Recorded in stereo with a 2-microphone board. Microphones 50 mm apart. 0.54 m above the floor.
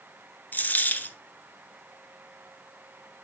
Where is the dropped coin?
40° left (ahead or behind), 0.9 m.